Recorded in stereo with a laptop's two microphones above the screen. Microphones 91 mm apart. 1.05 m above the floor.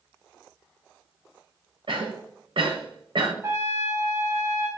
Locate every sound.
1.9 s a cough: 75° right (ahead or behind), 0.8 m
3.4 s a trumpet: 30° right (ahead or behind), 0.7 m